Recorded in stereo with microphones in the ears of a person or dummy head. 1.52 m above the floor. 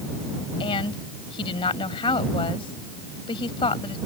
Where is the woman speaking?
25° left (ahead or behind).